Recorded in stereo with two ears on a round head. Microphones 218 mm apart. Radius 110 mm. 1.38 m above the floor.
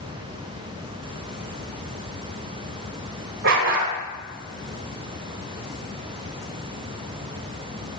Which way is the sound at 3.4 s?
50° right (ahead or behind).